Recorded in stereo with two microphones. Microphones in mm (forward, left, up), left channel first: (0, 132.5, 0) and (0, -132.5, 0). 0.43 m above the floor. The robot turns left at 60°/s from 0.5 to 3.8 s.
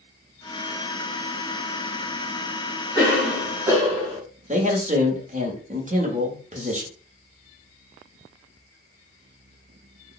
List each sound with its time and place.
3.0 s a cough: 25° left, 1.7 m; by 4.2 s 25° right, 1.7 m
4.5 s a man speaking: 30° right (ahead or behind), 0.9 m